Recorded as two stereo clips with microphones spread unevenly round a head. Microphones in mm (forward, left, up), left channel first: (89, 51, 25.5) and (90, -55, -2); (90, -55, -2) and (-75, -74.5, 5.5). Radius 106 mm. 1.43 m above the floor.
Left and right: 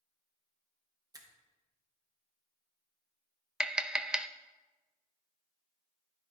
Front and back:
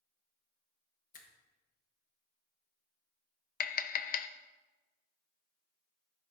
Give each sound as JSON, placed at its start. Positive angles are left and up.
{"t": 1.1, "sound": "a finger snap", "azimuth_deg": -30, "distance_m": 1.4}
{"t": 3.6, "sound": "tapping", "azimuth_deg": -15, "distance_m": 0.5}